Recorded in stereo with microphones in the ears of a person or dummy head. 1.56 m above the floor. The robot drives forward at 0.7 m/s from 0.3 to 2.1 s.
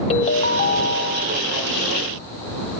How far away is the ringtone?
About 0.8 m.